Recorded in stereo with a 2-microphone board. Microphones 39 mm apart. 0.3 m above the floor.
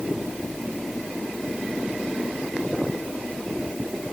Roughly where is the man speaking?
I don't hear a man speaking.